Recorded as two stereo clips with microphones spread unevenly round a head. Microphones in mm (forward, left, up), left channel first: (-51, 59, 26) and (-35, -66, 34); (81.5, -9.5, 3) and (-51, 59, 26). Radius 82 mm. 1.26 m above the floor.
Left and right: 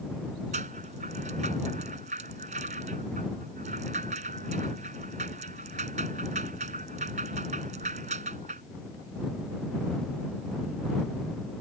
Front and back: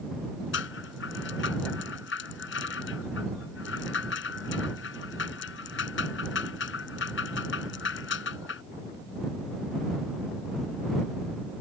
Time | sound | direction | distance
0.5 | a rattle | 30° right | ?